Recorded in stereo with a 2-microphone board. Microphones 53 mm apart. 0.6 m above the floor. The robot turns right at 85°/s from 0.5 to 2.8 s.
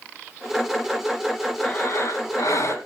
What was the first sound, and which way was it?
Breathing, 25° left.